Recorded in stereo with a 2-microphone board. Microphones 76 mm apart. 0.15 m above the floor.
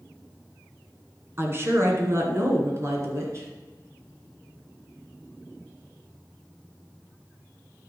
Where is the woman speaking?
35° right (ahead or behind), 1.9 m; by 3.5 s 40° right (ahead or behind), 2.5 m.